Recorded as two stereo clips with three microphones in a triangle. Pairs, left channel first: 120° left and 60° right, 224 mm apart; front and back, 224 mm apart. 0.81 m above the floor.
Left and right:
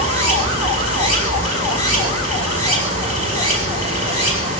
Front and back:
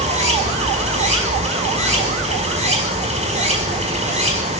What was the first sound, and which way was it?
Running water, 120° left.